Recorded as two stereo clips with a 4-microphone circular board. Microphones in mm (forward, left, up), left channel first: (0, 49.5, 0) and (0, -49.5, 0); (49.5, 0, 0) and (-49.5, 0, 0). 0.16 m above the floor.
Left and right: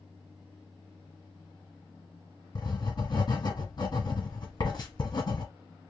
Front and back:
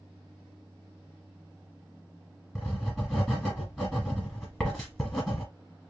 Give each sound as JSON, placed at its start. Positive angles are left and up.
{"t": 2.5, "sound": "writing", "azimuth_deg": 85, "distance_m": 1.6}